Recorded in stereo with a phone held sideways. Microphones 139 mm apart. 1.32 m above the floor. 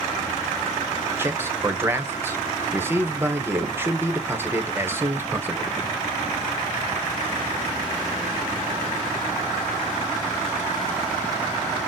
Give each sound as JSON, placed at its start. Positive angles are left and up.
{"t": 1.2, "sound": "a man speaking", "side_deg": -15, "distance_m": 0.9}